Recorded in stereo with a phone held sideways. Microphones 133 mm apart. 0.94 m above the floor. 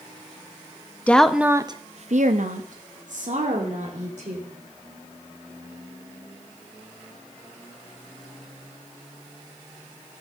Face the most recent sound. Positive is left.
turn(degrees=-60)  # may be behind; listen again after turning